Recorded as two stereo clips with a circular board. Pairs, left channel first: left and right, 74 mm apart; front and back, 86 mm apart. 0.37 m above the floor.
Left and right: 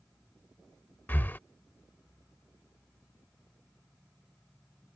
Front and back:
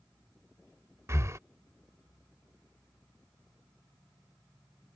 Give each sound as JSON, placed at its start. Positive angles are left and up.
{"t": 1.1, "sound": "breathing", "azimuth_deg": 140}